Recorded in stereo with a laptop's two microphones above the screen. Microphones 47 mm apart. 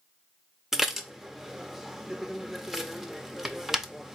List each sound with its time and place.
0.7 s dishes clattering: 10° right (ahead or behind), 0.7 m